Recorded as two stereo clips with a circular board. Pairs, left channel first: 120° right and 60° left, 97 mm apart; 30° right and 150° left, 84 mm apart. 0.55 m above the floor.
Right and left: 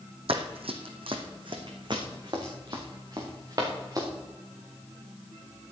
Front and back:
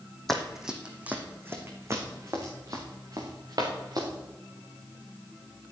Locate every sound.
0.3 s running footsteps: 55° left, 1.7 m; by 4.1 s 110° left, 4.5 m